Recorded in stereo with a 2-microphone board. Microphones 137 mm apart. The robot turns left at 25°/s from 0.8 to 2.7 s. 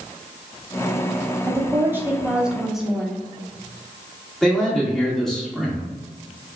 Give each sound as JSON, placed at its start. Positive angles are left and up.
{"t": 1.5, "sound": "a woman speaking", "azimuth_deg": -145, "distance_m": 0.8}
{"t": 4.4, "sound": "a man speaking", "side_deg": 5, "distance_m": 1.5}